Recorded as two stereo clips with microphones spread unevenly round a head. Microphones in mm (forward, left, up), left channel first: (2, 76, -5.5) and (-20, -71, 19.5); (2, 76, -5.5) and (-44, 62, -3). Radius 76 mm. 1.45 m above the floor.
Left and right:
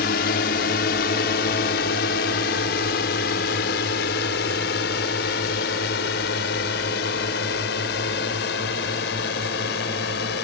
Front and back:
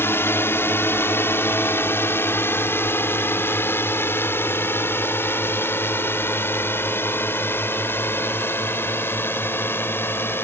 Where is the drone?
55° left.